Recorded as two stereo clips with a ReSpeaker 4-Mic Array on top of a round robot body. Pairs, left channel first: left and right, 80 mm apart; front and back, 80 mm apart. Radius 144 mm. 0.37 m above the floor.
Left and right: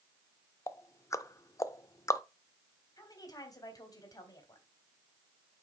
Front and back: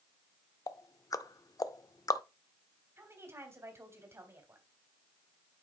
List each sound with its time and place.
0.7 s ticking: 40° left, 0.6 m
3.0 s a woman speaking: 125° left, 2.5 m